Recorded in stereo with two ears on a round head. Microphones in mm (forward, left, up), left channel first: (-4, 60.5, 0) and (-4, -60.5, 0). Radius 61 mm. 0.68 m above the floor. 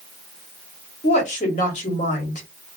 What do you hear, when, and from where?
1.0 s a woman speaking: 55° left (ahead or behind), 1.2 m